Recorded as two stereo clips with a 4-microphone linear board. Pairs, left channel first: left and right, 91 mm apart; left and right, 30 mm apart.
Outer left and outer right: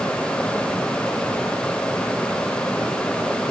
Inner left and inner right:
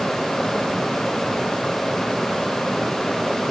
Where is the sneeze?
I don't hear a sneeze.